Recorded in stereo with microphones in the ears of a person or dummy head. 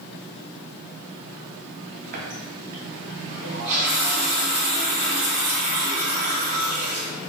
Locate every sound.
2.1 s a running tap: 40° right (ahead or behind), 0.7 m